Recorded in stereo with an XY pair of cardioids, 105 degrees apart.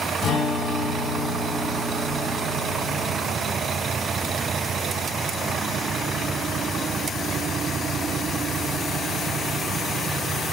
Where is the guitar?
65° left, 1.6 m.